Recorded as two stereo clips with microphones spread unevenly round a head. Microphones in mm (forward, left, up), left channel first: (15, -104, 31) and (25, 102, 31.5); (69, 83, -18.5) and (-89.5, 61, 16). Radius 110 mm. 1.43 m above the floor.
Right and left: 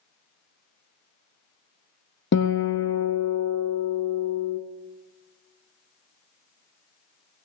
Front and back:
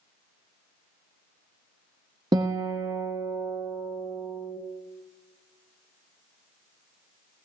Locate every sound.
2.3 s a guitar: 120° right, 0.9 m